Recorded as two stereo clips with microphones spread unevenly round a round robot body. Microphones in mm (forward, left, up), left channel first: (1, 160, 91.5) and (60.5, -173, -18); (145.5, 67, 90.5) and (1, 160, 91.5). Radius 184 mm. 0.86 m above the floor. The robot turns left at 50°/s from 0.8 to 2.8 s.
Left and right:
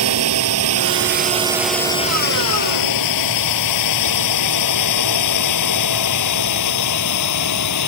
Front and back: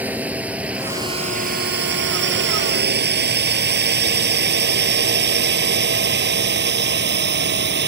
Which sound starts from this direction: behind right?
A drone, at 0.0 s.